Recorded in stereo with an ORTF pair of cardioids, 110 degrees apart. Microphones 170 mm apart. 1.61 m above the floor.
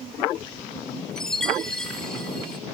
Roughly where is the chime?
Ahead.